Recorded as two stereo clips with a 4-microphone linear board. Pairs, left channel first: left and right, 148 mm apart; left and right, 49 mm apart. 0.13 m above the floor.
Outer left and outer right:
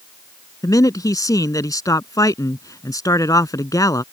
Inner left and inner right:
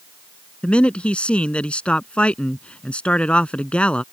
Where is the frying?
No frying in this recording.